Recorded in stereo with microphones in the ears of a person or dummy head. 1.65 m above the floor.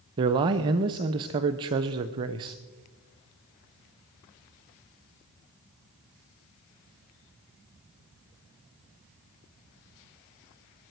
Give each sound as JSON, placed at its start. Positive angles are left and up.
{"t": 0.2, "sound": "a man speaking", "side_deg": -20, "distance_m": 0.6}